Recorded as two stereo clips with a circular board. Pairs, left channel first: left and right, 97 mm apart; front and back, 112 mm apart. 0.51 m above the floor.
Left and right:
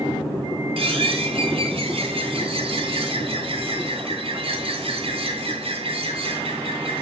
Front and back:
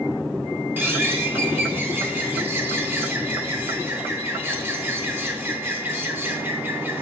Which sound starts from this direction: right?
A bird, at 0.8 s.